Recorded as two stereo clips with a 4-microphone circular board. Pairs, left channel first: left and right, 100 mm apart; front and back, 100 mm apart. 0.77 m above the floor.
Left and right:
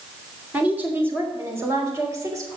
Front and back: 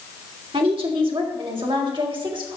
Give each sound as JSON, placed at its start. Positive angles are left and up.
{"t": 0.5, "sound": "a woman speaking", "azimuth_deg": -165, "distance_m": 3.0}